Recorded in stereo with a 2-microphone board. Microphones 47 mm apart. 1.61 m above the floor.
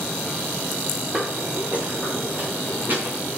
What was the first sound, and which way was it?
Footsteps, 20° right (ahead or behind).